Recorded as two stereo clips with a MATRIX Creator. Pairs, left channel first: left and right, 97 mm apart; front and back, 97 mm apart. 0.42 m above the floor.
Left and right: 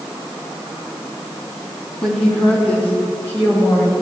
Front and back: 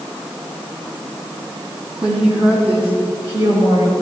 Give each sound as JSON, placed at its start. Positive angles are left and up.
{"t": 2.0, "sound": "a woman speaking", "azimuth_deg": 170, "distance_m": 3.0}